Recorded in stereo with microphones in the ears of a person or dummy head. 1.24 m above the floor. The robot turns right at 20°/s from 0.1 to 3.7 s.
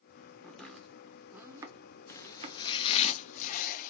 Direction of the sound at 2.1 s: 15° left.